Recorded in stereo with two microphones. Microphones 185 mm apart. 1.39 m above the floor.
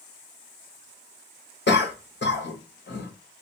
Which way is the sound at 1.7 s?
70° left (ahead or behind).